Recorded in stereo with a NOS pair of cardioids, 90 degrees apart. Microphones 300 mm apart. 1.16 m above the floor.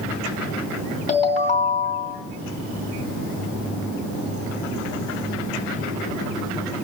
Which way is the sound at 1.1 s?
25° left.